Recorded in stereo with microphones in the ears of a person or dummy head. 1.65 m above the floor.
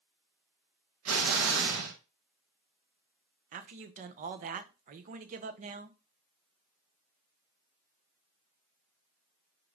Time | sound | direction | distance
1.1 | an explosion | 85° right | 2.5 m
3.5 | a man speaking | 45° right (ahead or behind) | 0.9 m